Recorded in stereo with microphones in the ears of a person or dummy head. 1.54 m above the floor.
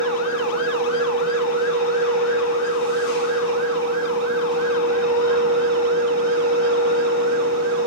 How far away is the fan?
About 2.0 m.